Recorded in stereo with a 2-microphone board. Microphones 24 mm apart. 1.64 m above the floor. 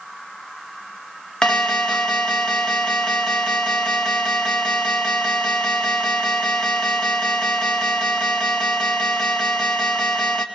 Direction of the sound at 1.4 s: 40° left (ahead or behind).